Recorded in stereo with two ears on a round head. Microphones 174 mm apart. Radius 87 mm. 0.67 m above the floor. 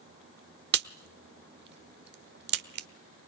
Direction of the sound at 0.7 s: 60° right (ahead or behind).